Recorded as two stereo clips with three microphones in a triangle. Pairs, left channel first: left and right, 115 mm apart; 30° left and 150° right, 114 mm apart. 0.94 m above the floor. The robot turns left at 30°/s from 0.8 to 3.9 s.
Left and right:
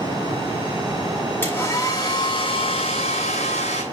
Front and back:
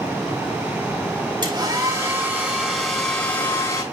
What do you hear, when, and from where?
1.4 s a hair dryer: 165° left, 7 m; by 3.8 s 90° left, 7 m